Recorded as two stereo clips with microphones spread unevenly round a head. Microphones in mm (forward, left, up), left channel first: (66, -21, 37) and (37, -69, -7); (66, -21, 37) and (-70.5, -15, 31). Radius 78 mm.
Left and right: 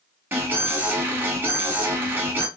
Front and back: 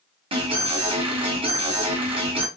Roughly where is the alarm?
Behind right.